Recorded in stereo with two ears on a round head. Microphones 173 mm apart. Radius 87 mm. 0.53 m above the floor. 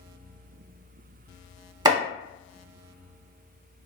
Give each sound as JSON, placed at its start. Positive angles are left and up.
{"t": 1.9, "sound": "chopping", "side_deg": -25, "distance_m": 0.7}